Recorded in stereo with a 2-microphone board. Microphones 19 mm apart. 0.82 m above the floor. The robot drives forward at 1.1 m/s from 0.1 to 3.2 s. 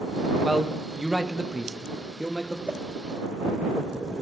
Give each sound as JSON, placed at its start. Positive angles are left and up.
{"t": 0.4, "sound": "a man speaking", "side_deg": -25, "distance_m": 1.5}
{"t": 2.7, "sound": "a whoosh", "side_deg": -60, "distance_m": 0.8}